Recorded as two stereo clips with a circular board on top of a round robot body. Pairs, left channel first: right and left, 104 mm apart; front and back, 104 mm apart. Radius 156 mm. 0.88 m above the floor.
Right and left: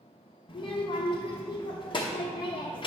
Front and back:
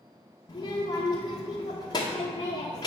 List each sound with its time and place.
0.5 s a child speaking: 50° right, 0.9 m